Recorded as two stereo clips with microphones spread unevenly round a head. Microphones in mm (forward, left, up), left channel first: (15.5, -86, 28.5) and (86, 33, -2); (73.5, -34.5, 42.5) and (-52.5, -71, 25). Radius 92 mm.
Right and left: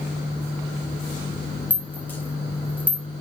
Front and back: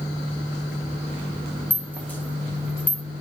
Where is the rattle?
55° right, 1.2 m.